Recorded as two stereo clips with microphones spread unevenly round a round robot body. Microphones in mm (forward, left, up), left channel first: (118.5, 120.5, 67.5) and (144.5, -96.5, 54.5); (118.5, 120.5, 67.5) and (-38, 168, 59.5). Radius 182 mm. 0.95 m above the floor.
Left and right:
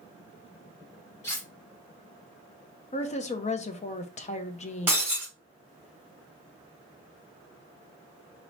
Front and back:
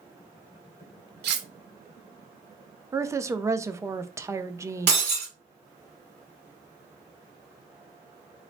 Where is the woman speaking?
115° left, 0.6 m.